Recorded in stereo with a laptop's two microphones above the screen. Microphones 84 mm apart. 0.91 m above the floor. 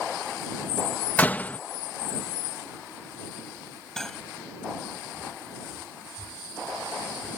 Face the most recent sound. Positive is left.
turn(degrees=5)  # may be behind; listen again after turning